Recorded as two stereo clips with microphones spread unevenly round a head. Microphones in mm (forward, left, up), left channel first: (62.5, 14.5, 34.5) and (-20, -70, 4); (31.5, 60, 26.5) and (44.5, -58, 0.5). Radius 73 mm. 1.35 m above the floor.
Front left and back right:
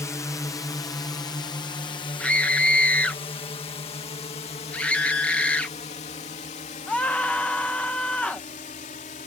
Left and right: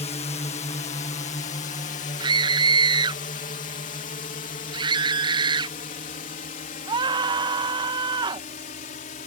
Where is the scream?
35° right.